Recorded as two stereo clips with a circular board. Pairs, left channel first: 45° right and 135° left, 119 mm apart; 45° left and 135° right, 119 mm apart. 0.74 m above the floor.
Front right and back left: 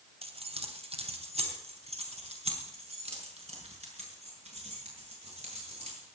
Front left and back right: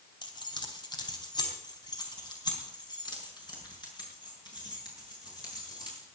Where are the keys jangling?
100° left, 2.5 m.